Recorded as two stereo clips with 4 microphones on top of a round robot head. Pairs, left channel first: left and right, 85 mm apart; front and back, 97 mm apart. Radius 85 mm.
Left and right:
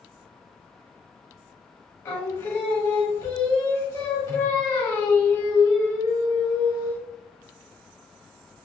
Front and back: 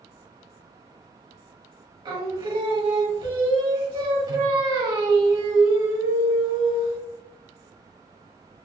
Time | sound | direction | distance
2.0 | singing | 145° left | 1.5 m